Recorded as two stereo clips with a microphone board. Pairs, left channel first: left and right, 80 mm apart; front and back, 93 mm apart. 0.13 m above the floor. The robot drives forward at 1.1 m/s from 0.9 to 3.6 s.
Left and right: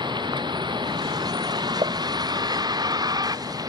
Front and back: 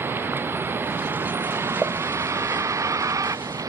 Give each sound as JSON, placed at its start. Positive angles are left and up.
{"t": 0.0, "sound": "a vehicle", "azimuth_deg": -115}
{"t": 1.8, "sound": "a pop", "azimuth_deg": -90}